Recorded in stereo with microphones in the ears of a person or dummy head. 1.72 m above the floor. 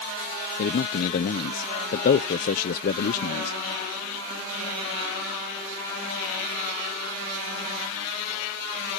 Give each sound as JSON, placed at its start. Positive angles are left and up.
{"t": 0.6, "sound": "a man speaking", "side_deg": 45}